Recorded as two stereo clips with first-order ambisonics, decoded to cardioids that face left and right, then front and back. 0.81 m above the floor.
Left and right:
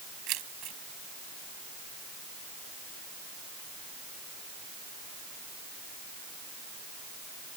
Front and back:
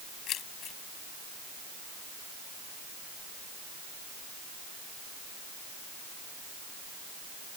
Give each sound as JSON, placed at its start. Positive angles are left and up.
{"t": 0.3, "sound": "keys jangling", "azimuth_deg": -50}